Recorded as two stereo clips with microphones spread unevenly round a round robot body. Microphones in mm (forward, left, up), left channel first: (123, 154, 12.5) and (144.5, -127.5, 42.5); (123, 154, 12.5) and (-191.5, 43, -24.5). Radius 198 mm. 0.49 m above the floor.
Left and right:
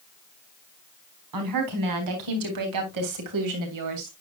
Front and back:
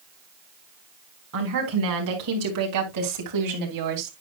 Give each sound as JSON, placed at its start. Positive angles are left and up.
{"t": 1.3, "sound": "a woman speaking", "azimuth_deg": -100, "distance_m": 4.0}